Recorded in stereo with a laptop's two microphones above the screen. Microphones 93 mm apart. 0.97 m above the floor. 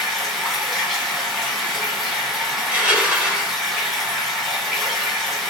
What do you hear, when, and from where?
0.0 s running water: centre (ahead or behind), 1.8 m
2.6 s crushing: 15° right (ahead or behind), 1.2 m